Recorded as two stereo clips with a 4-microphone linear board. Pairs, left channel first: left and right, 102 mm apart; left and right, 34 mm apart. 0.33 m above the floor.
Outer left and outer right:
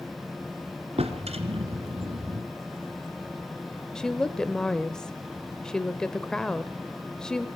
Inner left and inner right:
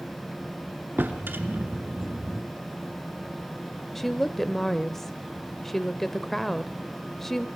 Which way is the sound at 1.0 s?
80° right.